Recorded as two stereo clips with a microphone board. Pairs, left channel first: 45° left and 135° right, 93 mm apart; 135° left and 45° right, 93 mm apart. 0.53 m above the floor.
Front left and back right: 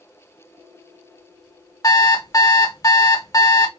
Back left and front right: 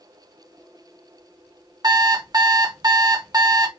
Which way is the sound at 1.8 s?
Straight ahead.